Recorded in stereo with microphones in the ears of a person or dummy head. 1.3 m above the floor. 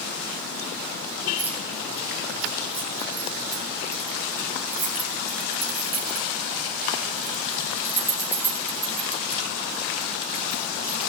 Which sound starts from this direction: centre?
Keys jangling, at 1.4 s.